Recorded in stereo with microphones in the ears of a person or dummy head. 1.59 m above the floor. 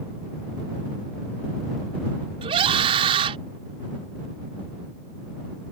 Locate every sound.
2.4 s a scream: 35° right (ahead or behind)